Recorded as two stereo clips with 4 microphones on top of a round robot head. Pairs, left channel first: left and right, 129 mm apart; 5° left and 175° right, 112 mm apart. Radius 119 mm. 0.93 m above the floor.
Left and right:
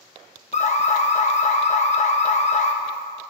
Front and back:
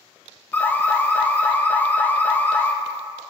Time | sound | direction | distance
0.5 | an alarm | 80° left | 1.4 m